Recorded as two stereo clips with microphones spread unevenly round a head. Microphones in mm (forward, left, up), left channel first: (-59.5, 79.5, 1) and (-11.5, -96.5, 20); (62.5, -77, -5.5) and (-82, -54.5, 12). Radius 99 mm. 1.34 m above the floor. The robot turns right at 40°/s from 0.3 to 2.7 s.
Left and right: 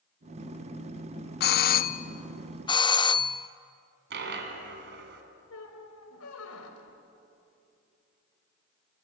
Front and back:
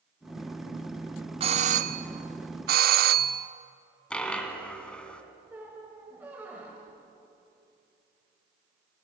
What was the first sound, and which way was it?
A doorbell, 110° left.